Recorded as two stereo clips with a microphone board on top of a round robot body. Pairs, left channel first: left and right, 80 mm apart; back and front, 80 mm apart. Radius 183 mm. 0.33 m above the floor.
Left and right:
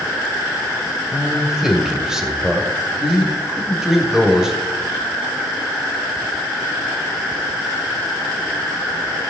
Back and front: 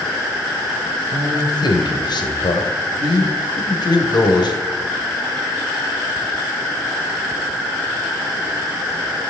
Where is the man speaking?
170° right, 2.5 m.